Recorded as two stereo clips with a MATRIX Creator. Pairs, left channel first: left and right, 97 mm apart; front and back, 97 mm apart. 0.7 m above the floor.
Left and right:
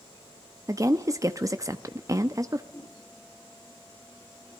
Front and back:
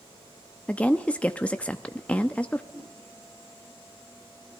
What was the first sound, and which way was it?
A woman speaking, 70° right.